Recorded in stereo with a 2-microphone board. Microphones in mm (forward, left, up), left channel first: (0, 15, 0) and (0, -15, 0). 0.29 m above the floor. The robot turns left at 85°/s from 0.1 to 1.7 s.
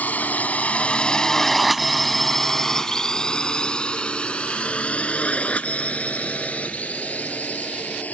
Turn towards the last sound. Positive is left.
turn(degrees=50)  # may be behind; listen again after turning